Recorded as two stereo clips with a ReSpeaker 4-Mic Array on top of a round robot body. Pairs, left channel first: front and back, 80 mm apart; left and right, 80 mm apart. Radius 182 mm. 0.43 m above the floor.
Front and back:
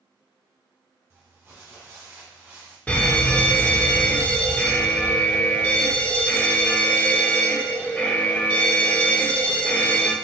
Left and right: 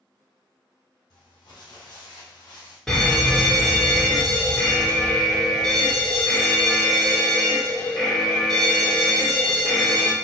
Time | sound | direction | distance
1.1 | crumpling | 125° left | 1.5 m
2.9 | a fire alarm | 20° left | 1.7 m